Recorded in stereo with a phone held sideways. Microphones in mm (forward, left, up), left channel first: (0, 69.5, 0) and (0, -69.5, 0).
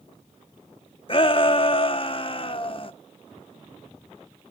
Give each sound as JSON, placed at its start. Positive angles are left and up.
{"t": 1.1, "sound": "a shout", "side_deg": 40, "distance_m": 0.8}